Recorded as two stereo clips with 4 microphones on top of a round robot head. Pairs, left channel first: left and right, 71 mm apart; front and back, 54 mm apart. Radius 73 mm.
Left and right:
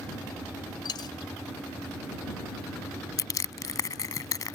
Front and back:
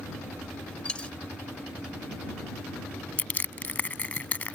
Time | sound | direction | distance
0.8 | a dropped coin | 70° left | ?
3.2 | crushing | 60° left | ?